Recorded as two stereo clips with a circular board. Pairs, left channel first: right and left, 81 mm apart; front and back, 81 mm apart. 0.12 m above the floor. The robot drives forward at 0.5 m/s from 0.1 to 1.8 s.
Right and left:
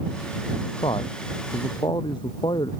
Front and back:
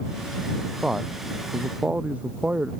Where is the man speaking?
100° right; by 2.7 s 105° right.